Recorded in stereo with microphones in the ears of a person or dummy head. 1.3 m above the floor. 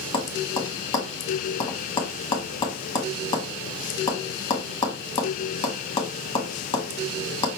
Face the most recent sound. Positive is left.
turn(degrees=25)  # may be behind; listen again after turning